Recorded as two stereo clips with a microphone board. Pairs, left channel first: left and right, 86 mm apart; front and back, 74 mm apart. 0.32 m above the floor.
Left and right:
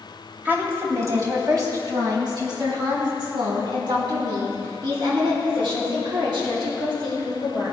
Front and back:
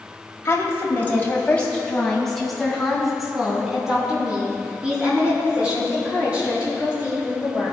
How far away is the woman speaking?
About 2.0 m.